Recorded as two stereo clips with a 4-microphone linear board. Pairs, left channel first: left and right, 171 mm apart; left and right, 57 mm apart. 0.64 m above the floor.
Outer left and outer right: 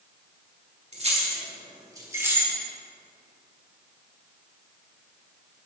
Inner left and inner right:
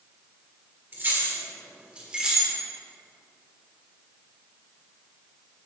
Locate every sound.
0.9 s keys jangling: 40° right (ahead or behind), 1.6 m; by 2.5 s 10° right (ahead or behind), 1.5 m